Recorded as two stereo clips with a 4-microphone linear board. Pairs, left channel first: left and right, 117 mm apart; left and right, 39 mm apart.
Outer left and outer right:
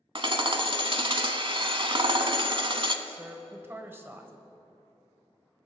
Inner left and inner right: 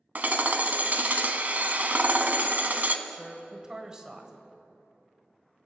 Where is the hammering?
45° right (ahead or behind), 0.7 m.